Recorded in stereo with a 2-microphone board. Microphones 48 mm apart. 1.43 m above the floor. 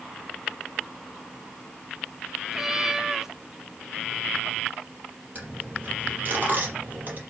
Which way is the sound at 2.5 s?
10° right (ahead or behind).